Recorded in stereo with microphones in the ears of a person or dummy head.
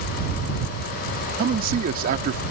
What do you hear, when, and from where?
1.4 s a man speaking: 55° right (ahead or behind)